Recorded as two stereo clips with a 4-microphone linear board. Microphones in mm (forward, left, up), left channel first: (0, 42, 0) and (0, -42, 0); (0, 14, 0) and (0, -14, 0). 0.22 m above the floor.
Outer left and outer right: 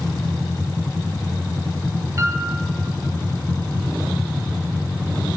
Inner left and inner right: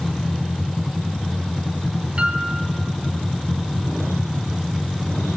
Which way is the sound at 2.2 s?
35° right (ahead or behind).